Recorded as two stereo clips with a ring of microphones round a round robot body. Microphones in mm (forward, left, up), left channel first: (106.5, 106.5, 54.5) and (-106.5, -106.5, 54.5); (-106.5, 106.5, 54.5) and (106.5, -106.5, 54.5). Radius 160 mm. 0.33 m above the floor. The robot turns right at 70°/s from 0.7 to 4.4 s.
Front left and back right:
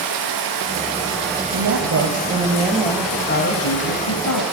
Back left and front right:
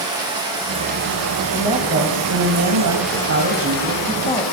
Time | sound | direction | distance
0.0 | running water | 120° right | 7 m
1.5 | a woman speaking | 130° right | 2.5 m